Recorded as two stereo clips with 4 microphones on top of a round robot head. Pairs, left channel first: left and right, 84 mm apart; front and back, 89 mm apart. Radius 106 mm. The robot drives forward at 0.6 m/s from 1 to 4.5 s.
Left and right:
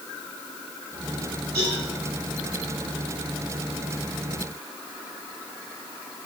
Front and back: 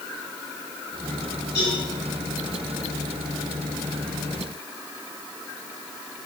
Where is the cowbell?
60° right, 5 m.